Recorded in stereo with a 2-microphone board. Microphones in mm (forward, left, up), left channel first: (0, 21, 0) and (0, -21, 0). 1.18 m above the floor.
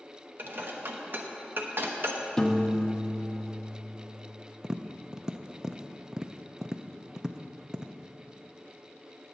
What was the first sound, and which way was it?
Dishes clattering, 50° right (ahead or behind).